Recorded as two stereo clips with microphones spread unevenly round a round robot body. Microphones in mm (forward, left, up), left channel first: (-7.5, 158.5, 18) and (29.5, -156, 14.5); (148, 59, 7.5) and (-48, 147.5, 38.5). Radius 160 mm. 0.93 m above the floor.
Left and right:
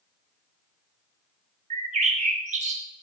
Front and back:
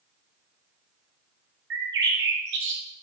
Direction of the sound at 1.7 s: 150° right.